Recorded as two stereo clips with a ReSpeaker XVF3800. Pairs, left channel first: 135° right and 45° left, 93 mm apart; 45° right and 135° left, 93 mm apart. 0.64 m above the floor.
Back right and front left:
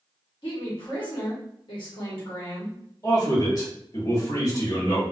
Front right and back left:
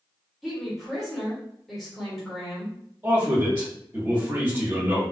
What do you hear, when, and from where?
0.4 s a woman speaking: 135° right, 1.4 m
3.0 s a man speaking: 160° right, 1.5 m